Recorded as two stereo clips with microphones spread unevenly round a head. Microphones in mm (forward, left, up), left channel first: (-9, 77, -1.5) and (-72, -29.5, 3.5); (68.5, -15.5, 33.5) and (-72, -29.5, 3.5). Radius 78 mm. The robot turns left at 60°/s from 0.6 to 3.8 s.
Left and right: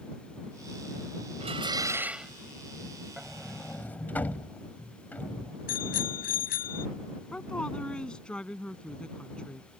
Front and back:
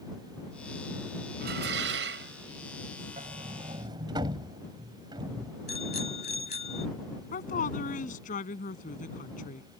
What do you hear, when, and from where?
1.4 s dishes clattering: 155° right; by 2.3 s 150° left
3.2 s a sliding door: 165° left; by 5.5 s 125° left
5.7 s a bicycle bell: 55° left
7.3 s a woman speaking: 25° right